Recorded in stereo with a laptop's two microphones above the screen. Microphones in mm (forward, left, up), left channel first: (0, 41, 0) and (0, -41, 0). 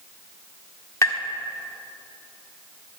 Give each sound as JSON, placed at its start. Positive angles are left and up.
{"t": 1.0, "sound": "tapping", "side_deg": 40, "distance_m": 1.5}